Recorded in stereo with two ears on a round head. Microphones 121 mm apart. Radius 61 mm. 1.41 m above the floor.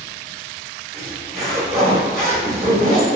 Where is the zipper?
45° right (ahead or behind), 1.0 m.